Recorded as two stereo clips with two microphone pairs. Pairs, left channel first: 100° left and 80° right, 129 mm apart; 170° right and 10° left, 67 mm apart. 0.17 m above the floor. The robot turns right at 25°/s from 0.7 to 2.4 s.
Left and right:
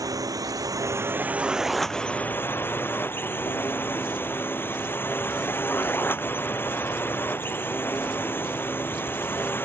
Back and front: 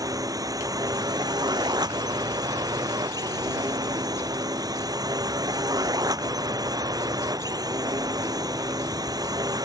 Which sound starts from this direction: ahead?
A drone, at 0.0 s.